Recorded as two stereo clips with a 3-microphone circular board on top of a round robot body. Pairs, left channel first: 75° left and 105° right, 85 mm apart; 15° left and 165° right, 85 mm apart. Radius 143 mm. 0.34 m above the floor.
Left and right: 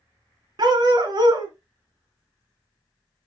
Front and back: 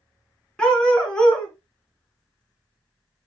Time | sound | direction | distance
0.6 | a dog barking | 65° right | 2 m